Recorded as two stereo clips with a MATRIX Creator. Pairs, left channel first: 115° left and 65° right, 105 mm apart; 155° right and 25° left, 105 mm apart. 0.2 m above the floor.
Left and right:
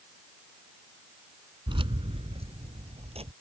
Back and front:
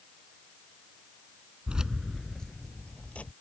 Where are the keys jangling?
55° right; by 3.3 s 80° right.